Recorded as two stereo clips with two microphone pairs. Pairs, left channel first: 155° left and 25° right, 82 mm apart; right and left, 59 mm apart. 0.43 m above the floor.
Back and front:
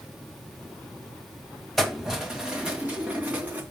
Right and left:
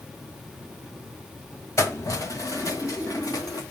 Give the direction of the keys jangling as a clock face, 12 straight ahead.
4 o'clock.